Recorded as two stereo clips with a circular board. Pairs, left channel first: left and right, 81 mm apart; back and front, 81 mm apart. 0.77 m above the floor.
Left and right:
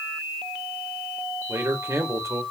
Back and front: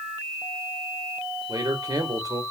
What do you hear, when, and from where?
1.5 s a man speaking: 40° right, 2.5 m